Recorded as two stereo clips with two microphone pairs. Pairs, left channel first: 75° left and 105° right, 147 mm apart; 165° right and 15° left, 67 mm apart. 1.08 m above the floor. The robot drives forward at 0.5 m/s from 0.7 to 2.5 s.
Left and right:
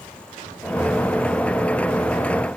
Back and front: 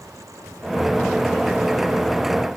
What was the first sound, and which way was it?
Only background noise.